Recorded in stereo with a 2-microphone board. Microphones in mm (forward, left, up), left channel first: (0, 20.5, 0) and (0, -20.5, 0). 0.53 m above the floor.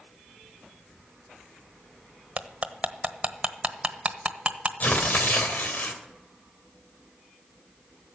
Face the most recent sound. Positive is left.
turn(degrees=40)  # may be behind; listen again after turning